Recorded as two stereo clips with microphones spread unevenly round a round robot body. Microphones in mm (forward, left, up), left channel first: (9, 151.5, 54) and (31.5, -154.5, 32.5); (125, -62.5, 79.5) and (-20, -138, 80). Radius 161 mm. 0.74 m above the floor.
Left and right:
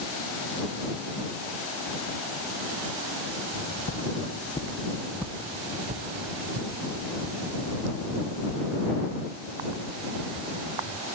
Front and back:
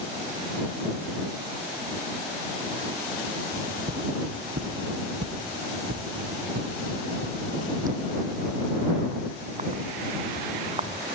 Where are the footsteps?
145° left; by 11.1 s 100° right.